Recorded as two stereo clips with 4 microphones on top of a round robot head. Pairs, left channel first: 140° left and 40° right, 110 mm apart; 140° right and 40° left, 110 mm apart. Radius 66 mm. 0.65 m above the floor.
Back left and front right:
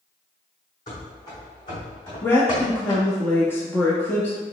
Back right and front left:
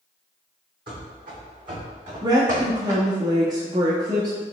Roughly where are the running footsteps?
Left.